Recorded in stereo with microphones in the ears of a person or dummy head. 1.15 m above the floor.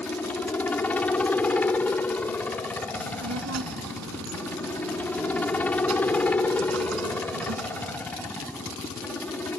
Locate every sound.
0.0 s a helicopter: 10° left (ahead or behind)
3.0 s a child speaking: 80° right